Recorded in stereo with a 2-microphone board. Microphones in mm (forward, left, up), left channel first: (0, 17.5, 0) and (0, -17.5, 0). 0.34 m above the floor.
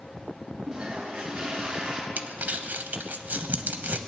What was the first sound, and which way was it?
A toilet flushing, 15° right (ahead or behind).